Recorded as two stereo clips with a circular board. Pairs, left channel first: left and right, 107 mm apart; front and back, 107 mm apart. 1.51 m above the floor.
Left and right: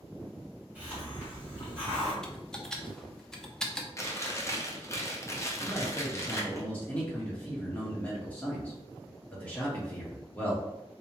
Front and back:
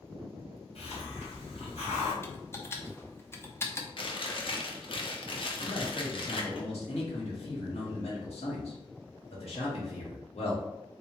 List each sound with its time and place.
0.8 s a hiss: 15° right, 1.8 m
2.2 s typing on a keyboard: 15° left, 0.6 m
4.0 s chewing: 30° left, 0.7 m
5.6 s a man speaking: 15° left, 1.5 m